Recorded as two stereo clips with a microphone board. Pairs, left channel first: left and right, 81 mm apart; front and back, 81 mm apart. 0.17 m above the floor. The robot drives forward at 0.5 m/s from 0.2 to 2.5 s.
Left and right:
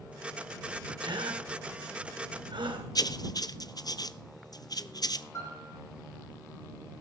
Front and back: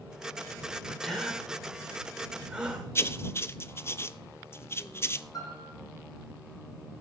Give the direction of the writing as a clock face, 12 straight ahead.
10 o'clock.